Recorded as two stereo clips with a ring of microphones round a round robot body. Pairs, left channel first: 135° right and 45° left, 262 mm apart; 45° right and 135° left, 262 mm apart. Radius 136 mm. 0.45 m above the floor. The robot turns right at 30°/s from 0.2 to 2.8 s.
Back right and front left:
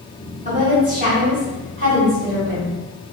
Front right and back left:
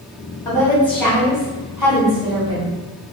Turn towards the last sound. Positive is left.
turn(degrees=90)